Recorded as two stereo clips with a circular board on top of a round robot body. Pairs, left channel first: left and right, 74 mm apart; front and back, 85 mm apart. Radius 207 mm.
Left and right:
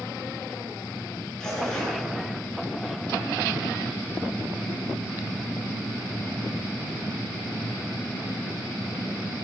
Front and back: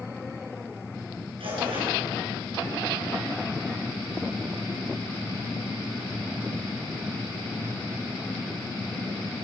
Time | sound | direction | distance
1.4 | tearing paper | 170° left | 9 m